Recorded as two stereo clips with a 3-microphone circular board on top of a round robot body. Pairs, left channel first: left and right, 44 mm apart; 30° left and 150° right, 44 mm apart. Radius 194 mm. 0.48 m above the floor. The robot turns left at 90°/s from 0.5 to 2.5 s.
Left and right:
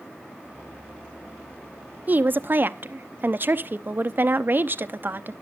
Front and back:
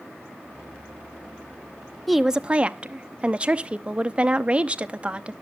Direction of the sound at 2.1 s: 55° right.